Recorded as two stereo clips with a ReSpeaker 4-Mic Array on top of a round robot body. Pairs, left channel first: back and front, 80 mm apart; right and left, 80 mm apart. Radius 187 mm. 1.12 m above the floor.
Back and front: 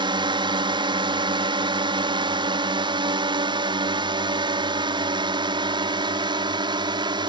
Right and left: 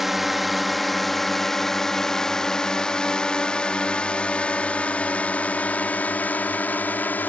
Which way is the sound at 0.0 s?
5° left.